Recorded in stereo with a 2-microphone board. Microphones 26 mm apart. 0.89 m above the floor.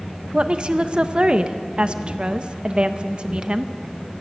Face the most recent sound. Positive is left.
turn(degrees=-40)  # may be behind; listen again after turning